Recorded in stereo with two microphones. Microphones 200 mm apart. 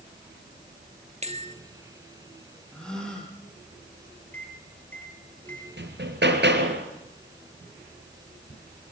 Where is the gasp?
5° left (ahead or behind), 7 m.